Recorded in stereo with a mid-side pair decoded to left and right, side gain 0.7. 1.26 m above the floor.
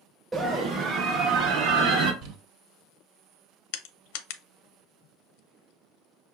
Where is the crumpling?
60° right, 1.5 m.